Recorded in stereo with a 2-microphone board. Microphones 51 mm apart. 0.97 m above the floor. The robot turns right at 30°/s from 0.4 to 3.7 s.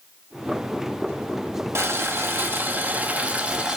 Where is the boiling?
75° right, 1.2 m; by 3.8 s 20° right, 1.2 m.